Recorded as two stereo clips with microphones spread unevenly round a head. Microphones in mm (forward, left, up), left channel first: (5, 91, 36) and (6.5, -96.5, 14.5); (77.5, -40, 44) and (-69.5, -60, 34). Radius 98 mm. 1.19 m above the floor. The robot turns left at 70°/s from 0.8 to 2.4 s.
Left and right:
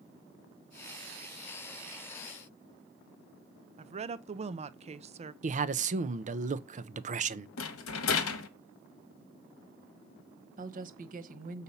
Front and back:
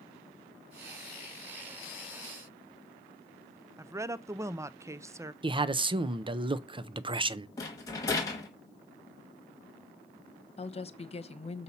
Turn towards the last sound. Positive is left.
turn(degrees=-40)